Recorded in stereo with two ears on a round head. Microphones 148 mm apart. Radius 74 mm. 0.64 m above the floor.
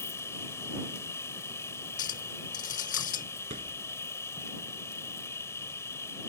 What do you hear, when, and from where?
0.0 s an insect: 15° left (ahead or behind)
2.0 s a clink: 50° left (ahead or behind)
3.5 s a thud: 45° right (ahead or behind)